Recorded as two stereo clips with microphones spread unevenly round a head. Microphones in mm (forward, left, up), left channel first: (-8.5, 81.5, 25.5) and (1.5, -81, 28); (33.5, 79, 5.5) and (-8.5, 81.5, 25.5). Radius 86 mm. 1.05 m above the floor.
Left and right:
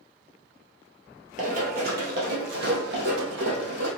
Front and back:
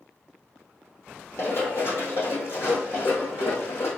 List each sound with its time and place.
1.4 s running footsteps: 60° right, 1.5 m; by 3.9 s 70° right, 3 m